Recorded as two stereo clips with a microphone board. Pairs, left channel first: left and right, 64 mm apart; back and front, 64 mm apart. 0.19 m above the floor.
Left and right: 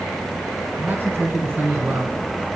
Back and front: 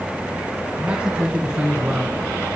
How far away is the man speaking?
About 2 m.